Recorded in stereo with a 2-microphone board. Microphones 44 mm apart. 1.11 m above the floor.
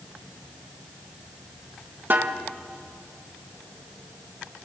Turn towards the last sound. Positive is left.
turn(degrees=-50)  # may be behind; listen again after turning